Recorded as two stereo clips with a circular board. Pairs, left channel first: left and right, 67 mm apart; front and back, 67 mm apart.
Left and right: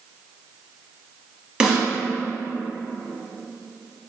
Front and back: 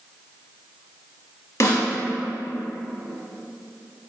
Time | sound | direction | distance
1.6 | a snare drum | 15° right | 0.9 m